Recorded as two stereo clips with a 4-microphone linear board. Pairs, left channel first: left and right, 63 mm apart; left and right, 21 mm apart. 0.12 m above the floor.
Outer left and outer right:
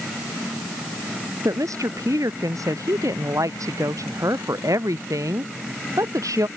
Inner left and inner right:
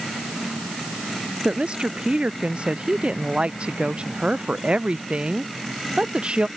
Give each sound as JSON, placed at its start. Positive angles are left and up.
{"t": 1.4, "sound": "a woman speaking", "side_deg": -60}